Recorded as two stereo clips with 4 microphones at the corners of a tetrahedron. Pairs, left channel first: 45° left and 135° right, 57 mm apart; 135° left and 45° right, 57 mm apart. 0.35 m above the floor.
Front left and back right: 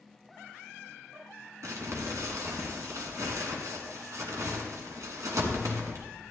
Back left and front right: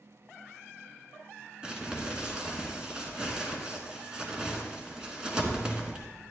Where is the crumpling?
120° right, 1.5 m.